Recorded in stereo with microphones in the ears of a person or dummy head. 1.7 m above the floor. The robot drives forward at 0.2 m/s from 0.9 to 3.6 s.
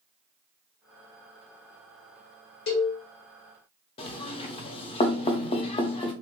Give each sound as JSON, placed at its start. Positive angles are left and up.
{"t": 2.7, "sound": "a cowbell", "side_deg": 65, "distance_m": 1.0}
{"t": 4.0, "sound": "knocking", "side_deg": 30, "distance_m": 0.5}